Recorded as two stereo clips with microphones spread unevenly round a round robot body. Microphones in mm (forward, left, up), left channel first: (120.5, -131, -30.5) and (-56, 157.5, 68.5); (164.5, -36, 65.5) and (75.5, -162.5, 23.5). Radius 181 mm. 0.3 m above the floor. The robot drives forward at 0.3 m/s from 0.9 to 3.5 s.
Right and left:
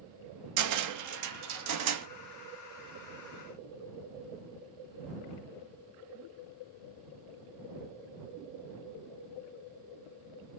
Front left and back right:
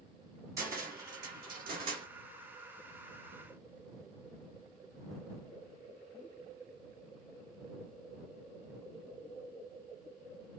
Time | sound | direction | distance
0.6 | a cupboard door | 165° left | 0.7 m